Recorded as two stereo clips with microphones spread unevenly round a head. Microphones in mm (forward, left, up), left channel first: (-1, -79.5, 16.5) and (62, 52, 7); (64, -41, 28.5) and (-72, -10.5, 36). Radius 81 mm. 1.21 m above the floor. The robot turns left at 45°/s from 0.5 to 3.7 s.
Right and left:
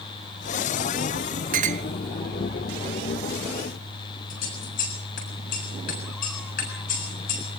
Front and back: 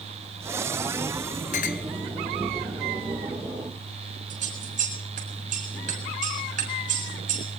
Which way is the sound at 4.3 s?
160° right.